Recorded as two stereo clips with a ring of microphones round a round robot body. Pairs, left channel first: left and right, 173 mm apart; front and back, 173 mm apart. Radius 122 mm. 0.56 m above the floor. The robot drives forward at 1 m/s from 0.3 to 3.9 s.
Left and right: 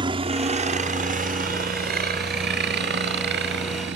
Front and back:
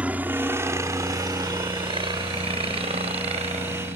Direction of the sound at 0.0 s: 105° right.